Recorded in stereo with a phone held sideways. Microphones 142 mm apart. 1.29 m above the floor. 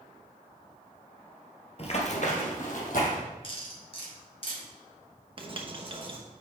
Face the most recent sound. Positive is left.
turn(degrees=-40)  # may be behind; listen again after turning